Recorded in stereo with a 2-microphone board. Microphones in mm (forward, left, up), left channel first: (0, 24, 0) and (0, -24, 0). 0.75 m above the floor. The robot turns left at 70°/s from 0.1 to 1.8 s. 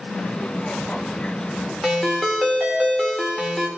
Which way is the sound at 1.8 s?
5° left (ahead or behind).